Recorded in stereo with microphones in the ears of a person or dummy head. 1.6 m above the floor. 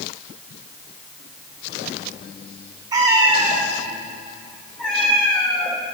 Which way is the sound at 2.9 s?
20° right (ahead or behind).